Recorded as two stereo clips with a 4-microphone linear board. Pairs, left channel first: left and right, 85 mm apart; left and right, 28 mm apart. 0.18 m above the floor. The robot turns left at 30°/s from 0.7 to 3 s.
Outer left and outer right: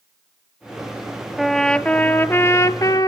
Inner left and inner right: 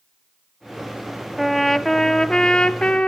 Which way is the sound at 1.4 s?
Straight behind.